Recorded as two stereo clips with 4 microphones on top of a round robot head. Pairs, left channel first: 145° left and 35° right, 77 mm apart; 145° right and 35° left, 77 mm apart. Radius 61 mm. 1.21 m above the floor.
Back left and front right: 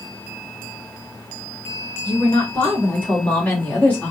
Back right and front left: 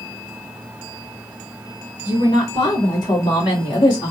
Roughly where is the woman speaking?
Behind right.